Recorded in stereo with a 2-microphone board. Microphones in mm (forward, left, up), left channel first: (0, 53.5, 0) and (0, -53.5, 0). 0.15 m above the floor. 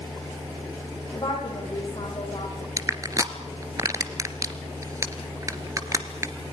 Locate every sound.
1.1 s a woman speaking: 45° left (ahead or behind), 8.5 m
2.8 s crushing: 30° right (ahead or behind), 1.5 m